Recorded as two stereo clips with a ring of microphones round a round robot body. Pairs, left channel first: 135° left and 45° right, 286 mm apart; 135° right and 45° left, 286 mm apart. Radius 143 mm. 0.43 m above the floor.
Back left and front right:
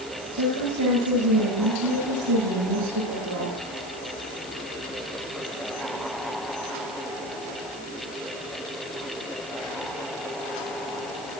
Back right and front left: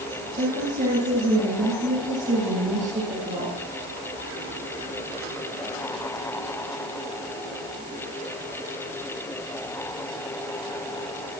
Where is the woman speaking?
20° right, 10 m.